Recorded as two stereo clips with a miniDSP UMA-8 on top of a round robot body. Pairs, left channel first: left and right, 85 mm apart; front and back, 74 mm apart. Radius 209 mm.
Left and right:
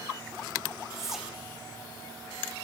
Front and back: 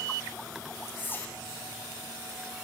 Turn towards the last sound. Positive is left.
turn(degrees=-10)